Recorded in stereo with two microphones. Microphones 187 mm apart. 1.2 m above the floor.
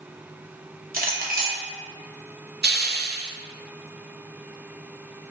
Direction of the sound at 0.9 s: 50° right (ahead or behind).